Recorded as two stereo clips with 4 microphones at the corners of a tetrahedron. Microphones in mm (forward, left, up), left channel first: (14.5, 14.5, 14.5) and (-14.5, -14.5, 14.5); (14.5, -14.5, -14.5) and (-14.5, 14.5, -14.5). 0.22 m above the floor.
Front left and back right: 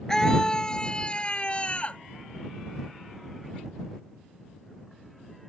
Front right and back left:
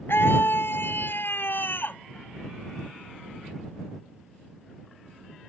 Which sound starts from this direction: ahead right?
A scream, at 0.1 s.